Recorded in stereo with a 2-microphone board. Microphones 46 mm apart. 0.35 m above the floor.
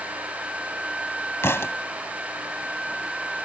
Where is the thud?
70° left (ahead or behind).